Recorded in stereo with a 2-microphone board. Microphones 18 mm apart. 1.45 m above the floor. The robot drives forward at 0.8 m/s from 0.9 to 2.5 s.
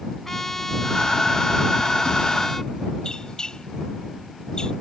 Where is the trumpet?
20° left (ahead or behind).